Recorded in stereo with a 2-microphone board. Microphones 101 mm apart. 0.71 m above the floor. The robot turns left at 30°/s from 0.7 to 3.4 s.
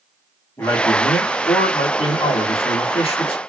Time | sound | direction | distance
0.6 | a man speaking | 155° left | 1.2 m